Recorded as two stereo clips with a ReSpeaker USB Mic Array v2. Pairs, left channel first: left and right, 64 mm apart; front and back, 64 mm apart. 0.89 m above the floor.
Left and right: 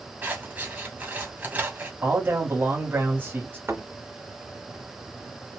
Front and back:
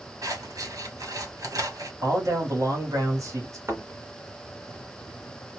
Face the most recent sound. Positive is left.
turn(degrees=-135)